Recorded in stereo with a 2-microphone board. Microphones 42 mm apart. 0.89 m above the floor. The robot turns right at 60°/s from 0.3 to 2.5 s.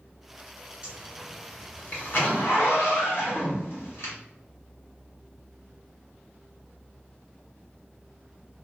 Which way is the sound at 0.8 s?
25° right (ahead or behind).